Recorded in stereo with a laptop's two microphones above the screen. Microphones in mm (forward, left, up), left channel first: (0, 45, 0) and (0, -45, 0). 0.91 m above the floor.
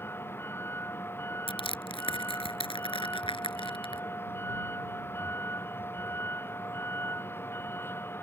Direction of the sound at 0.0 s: 25° left (ahead or behind).